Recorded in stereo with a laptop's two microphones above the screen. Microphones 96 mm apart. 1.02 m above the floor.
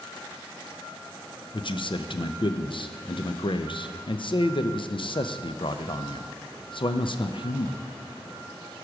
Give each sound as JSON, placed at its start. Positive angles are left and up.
{"t": 1.5, "sound": "a man speaking", "side_deg": 60, "distance_m": 0.5}